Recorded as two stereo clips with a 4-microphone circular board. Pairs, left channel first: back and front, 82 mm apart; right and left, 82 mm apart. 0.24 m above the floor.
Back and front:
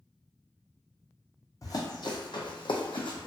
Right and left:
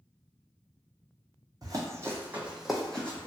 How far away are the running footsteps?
About 0.8 m.